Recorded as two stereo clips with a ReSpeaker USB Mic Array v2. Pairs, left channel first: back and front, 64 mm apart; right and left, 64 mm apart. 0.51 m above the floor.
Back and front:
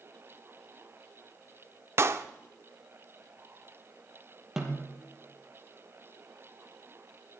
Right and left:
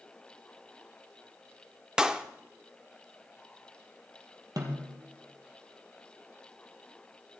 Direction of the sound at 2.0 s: 15° left.